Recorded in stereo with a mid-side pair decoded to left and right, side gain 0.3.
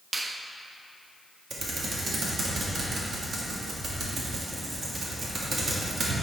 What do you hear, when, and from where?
0.1 s a finger snap: 35° right, 0.7 m
1.5 s typing on a keyboard: 65° right, 1.8 m